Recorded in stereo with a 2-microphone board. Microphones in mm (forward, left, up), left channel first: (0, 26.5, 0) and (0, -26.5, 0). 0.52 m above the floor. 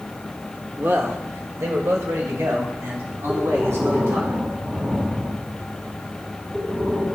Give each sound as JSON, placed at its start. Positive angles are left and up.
{"t": 0.8, "sound": "a man speaking", "side_deg": -35, "distance_m": 1.2}
{"t": 3.3, "sound": "breathing", "side_deg": -45, "distance_m": 3.0}